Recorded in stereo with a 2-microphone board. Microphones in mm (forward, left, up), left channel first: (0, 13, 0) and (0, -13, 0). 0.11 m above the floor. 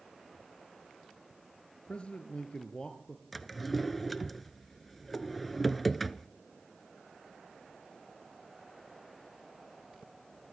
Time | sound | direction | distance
1.9 | a man speaking | 50° left (ahead or behind) | 1.9 m
3.3 | a drawer | 5° left (ahead or behind) | 0.8 m